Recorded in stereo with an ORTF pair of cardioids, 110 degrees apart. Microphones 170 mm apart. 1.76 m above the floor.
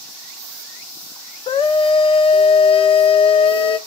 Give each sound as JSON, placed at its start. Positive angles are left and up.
{"t": 1.5, "sound": "a scream", "azimuth_deg": 35, "distance_m": 0.6}